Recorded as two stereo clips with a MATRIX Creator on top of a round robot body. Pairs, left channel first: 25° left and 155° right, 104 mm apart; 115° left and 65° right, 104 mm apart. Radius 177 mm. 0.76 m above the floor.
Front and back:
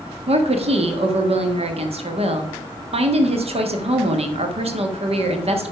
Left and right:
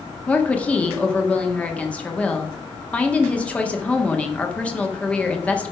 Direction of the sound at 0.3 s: 170° right.